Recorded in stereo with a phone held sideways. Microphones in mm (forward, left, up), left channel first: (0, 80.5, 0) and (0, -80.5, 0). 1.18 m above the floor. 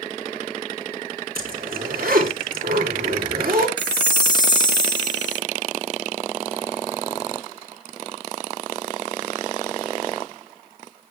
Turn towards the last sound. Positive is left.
turn(degrees=25)  # may be behind; listen again after turning